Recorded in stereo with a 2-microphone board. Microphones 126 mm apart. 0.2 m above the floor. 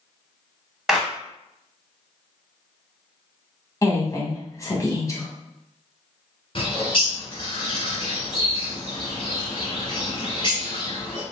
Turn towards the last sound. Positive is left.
turn(degrees=45)  # may be behind; listen again after turning